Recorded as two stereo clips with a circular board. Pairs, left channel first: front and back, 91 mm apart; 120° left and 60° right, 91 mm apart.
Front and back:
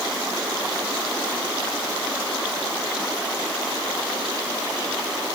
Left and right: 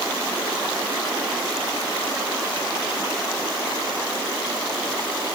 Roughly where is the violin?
I don't hear a violin.